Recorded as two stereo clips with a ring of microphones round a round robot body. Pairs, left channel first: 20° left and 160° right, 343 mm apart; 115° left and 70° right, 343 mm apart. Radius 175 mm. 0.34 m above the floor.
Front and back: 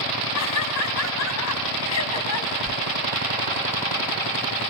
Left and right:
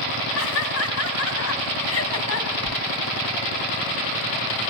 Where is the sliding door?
130° left, 3 m.